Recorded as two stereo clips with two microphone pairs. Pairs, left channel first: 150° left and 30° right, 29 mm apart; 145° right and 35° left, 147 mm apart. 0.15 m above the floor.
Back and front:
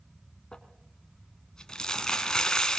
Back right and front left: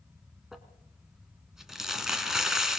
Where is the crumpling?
120° left, 1.9 m.